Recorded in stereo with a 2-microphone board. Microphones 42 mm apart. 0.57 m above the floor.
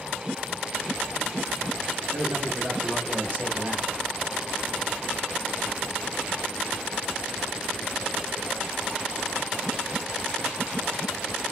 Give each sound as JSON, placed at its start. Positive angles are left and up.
{"t": 2.1, "sound": "a man speaking", "side_deg": -15, "distance_m": 1.6}